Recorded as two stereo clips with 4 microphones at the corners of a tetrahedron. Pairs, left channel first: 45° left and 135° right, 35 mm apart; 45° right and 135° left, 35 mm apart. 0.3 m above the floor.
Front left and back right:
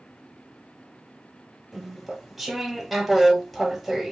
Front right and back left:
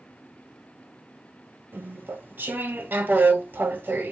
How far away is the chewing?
About 0.7 m.